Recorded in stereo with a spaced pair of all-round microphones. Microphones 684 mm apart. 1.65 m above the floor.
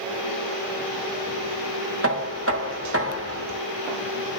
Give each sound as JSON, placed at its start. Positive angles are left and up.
{"t": 2.0, "sound": "knocking", "side_deg": -20, "distance_m": 1.3}